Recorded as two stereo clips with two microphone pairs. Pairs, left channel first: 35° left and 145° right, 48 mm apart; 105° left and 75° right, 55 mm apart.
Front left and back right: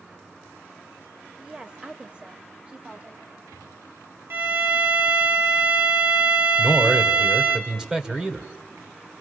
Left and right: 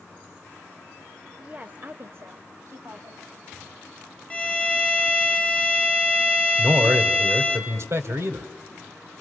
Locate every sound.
1.4 s a woman speaking: 95° right, 0.9 m; by 3.2 s 80° right, 1.9 m
4.3 s a violin: 175° left, 1.4 m
6.6 s a man speaking: 75° right, 1.6 m